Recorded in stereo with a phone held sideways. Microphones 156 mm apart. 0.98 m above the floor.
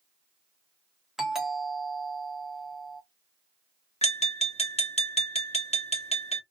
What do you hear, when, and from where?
1.2 s a doorbell: 5° right (ahead or behind), 1.1 m
4.0 s tapping: 40° left (ahead or behind), 1.0 m